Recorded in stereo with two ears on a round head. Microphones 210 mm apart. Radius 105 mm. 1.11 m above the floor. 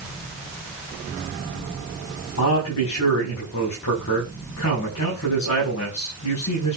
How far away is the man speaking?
About 7 m.